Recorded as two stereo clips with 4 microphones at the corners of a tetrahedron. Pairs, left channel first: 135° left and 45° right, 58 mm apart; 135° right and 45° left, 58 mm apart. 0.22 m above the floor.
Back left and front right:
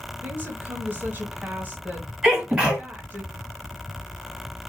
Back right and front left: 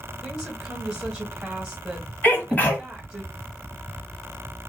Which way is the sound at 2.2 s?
110° right.